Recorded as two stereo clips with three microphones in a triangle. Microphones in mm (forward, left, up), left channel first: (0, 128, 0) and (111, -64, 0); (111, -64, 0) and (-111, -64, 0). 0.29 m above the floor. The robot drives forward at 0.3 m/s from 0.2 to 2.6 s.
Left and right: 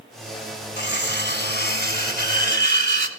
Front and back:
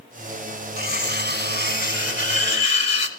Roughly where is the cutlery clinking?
Behind left.